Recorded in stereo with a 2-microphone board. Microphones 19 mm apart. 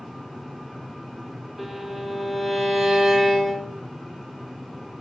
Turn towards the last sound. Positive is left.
turn(degrees=0)  # may be behind; listen again after turning